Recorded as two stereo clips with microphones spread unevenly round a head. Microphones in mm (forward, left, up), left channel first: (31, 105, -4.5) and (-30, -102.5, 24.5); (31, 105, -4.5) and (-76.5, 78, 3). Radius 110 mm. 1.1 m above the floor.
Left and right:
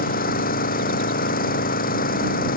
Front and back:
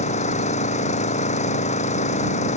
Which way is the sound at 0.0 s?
20° left.